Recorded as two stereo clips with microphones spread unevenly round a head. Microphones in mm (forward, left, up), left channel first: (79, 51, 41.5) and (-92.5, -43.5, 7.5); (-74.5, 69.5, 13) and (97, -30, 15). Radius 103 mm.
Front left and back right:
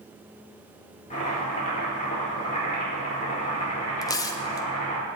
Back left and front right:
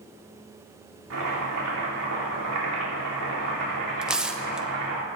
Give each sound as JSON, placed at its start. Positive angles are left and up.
{"t": 1.1, "sound": "chopping", "azimuth_deg": -25, "distance_m": 4.0}
{"t": 4.0, "sound": "tearing paper", "azimuth_deg": 50, "distance_m": 0.6}